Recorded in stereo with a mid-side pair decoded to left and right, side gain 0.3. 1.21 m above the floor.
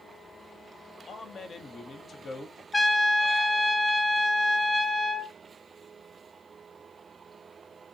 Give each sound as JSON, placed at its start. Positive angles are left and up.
{"t": 1.1, "sound": "a man speaking", "azimuth_deg": 70, "distance_m": 0.7}
{"t": 2.7, "sound": "a trumpet", "azimuth_deg": 40, "distance_m": 0.7}